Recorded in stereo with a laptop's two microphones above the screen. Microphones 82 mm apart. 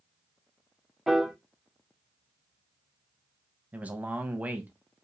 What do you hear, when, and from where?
1.1 s a piano: centre (ahead or behind), 0.6 m
3.7 s a man speaking: 20° right (ahead or behind), 0.7 m